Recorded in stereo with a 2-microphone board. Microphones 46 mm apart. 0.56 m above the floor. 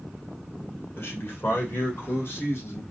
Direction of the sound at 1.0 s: 60° left (ahead or behind).